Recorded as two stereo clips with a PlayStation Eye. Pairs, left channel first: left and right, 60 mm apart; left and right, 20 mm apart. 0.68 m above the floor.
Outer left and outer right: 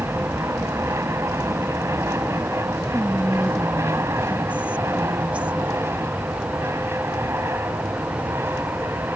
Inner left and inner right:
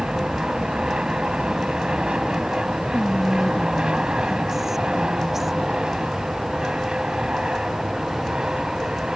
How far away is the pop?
No pop in this recording.